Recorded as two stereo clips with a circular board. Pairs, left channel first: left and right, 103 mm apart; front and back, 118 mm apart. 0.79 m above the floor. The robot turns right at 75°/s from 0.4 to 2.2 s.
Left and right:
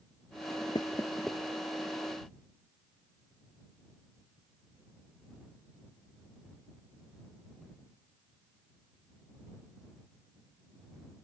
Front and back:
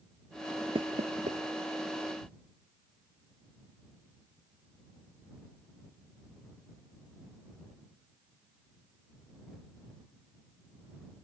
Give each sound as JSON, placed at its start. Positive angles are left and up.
{"t": 0.8, "sound": "knocking", "azimuth_deg": 135}